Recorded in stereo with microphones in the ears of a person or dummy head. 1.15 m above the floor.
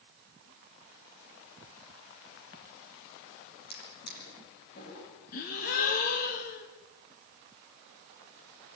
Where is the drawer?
55° left (ahead or behind), 9.5 m.